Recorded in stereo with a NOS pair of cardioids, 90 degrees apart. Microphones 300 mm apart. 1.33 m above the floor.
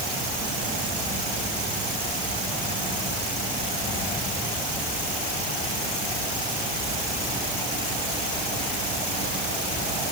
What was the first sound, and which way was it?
Only background noise.